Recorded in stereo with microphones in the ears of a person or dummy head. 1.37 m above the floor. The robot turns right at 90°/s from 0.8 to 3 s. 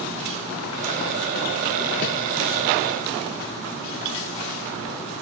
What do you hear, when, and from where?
2.0 s a whoosh: 50° left (ahead or behind), 1.4 m; by 2.1 s 60° left (ahead or behind), 1.4 m